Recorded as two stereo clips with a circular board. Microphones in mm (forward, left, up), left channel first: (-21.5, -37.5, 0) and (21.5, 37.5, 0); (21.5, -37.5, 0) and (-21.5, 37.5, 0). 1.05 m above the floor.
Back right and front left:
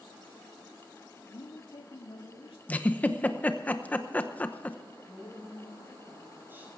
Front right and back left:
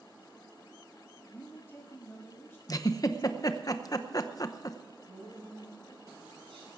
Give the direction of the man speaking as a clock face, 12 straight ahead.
4 o'clock.